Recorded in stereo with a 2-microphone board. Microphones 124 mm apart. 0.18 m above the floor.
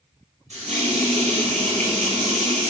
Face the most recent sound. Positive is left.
turn(degrees=-65)  # may be behind; listen again after turning